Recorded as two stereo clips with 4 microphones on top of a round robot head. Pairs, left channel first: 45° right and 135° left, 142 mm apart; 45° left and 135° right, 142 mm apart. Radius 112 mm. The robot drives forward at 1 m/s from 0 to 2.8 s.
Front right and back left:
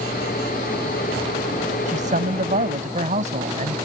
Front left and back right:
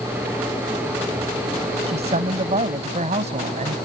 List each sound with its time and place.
1.9 s a man speaking: 175° left